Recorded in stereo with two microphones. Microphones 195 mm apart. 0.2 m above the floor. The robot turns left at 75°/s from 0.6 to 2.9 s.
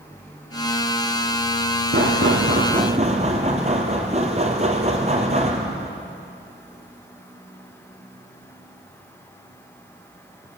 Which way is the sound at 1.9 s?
70° right.